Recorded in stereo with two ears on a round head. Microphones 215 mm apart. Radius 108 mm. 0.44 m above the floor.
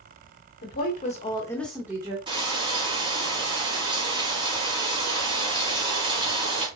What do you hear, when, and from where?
0.6 s a woman speaking: 45° left (ahead or behind), 1.5 m; by 2.2 s 20° right (ahead or behind), 1.2 m
2.3 s frying: 20° right (ahead or behind), 2 m